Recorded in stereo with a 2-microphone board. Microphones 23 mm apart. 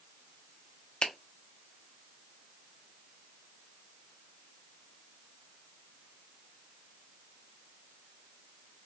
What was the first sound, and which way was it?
A finger snap, 50° left (ahead or behind).